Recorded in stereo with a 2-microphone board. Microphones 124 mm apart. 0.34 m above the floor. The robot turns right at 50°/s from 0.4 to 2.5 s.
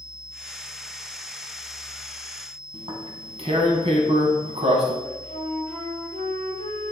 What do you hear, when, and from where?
2.7 s tearing paper: 55° right (ahead or behind), 1.7 m
5.0 s a flute: 80° right, 3.5 m